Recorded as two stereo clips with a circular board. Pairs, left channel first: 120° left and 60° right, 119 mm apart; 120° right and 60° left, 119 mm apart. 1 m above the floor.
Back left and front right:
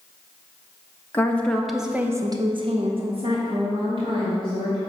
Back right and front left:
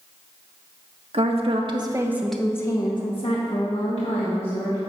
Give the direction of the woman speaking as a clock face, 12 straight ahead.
10 o'clock.